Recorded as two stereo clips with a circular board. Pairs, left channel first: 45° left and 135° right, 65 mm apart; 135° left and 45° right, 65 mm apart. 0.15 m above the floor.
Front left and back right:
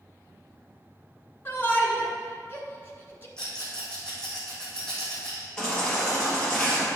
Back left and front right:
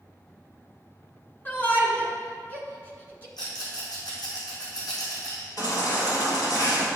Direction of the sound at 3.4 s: 125° left.